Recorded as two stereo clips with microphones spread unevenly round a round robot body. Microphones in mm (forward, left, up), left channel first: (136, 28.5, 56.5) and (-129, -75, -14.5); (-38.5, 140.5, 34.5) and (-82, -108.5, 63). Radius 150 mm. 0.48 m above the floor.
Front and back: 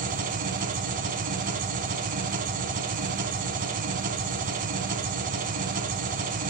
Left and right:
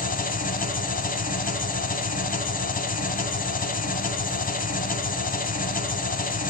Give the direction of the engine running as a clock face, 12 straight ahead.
7 o'clock.